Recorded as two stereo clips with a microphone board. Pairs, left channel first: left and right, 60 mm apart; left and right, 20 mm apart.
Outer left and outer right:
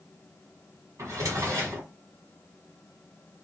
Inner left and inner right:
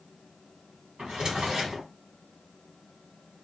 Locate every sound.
1.0 s a drawer: 60° right (ahead or behind), 1.5 m